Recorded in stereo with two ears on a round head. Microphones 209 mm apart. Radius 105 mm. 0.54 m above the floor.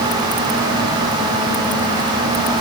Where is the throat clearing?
I don't hear throat clearing.